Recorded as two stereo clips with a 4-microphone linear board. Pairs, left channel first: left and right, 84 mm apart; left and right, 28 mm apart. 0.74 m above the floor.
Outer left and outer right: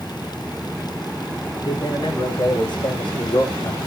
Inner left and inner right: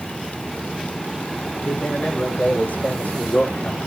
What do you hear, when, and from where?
1.6 s a man speaking: 60° left (ahead or behind), 3 m; by 3.8 s 50° left (ahead or behind), 1.6 m